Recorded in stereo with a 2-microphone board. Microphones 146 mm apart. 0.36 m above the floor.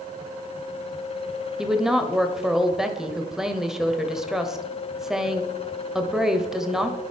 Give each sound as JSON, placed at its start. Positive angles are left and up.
{"t": 1.6, "sound": "a woman speaking", "side_deg": -5, "distance_m": 1.1}